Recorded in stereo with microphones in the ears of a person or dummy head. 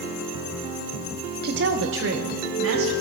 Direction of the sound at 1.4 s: 50° right (ahead or behind).